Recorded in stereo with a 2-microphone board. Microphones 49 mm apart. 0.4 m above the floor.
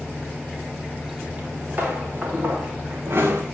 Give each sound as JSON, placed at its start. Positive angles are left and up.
{"t": 1.4, "sound": "footsteps", "side_deg": -30, "distance_m": 4.0}